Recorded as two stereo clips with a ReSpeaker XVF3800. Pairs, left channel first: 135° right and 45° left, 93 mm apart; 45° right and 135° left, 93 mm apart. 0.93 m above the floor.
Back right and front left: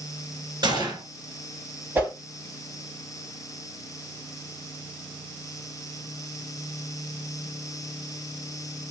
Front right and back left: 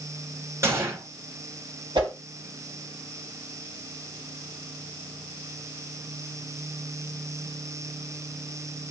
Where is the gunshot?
80° left, 1.9 m.